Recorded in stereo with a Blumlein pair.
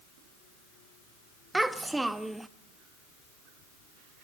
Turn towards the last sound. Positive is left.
turn(degrees=-5)